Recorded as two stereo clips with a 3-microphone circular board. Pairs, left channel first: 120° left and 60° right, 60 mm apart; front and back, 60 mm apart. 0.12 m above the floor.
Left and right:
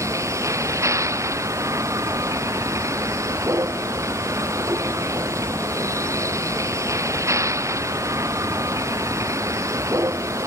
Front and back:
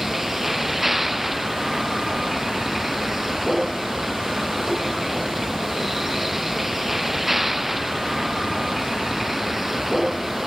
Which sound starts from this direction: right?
A vehicle, at 0.0 s.